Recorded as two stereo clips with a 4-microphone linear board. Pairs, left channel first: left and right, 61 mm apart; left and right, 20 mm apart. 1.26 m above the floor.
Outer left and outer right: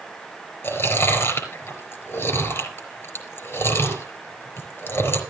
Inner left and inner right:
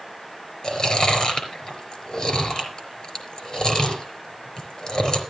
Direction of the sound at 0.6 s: 40° left (ahead or behind).